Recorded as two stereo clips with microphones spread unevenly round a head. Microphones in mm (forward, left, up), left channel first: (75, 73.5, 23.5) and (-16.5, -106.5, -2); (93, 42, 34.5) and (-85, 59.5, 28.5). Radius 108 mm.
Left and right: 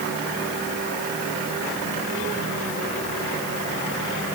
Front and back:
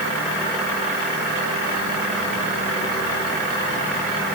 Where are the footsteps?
I don't hear footsteps.